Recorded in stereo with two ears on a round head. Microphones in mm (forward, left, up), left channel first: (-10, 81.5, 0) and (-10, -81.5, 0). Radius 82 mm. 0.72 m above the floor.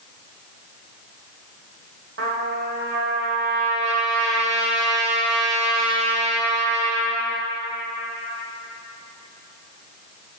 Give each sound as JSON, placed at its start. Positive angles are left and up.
{"t": 2.2, "sound": "a trumpet", "side_deg": -65, "distance_m": 1.4}